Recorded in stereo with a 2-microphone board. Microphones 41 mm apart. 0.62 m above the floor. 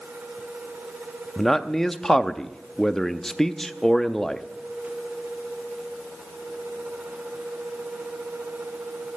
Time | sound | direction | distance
1.4 | a man speaking | 10° left (ahead or behind) | 0.5 m